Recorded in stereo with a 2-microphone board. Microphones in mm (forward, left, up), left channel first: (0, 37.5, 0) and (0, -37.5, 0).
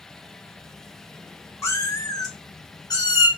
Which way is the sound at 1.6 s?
40° left (ahead or behind).